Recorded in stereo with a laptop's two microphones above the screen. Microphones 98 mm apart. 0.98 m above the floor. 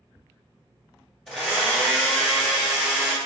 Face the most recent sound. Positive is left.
turn(degrees=0)  # may be behind; listen again after turning